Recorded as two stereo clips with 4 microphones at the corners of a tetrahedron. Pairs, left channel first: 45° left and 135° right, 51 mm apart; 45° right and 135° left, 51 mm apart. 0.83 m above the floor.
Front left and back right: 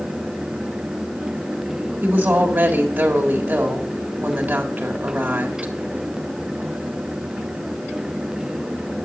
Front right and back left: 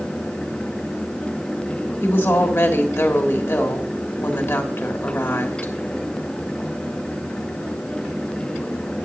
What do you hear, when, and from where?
2.0 s a woman speaking: 80° right, 1.5 m